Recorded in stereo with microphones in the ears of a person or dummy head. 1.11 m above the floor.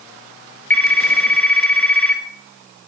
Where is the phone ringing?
10° left (ahead or behind), 1.4 m.